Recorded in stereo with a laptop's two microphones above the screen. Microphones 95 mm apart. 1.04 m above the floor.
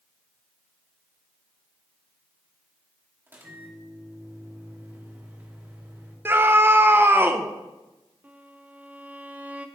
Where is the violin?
15° right (ahead or behind), 0.6 m.